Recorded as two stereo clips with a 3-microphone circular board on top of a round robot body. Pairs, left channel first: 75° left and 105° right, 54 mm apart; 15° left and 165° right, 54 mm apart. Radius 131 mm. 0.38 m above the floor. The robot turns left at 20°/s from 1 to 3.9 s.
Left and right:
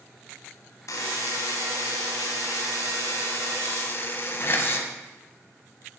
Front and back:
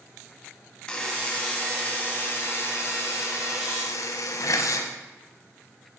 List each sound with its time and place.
0.9 s a buzzer: 85° left, 1.1 m; by 4.9 s 30° left, 1.1 m